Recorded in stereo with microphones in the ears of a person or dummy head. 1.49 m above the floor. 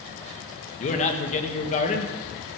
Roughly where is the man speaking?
Left.